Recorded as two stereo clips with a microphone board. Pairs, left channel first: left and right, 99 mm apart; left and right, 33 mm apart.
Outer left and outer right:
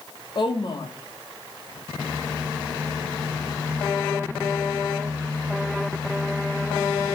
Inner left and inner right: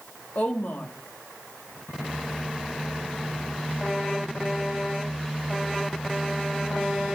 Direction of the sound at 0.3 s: 65° left (ahead or behind).